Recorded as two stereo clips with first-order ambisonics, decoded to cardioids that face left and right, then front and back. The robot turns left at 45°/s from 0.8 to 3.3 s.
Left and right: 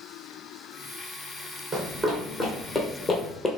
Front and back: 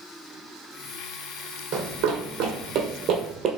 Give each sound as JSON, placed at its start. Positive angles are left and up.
{"t": 1.7, "sound": "running footsteps", "azimuth_deg": -170, "distance_m": 1.6}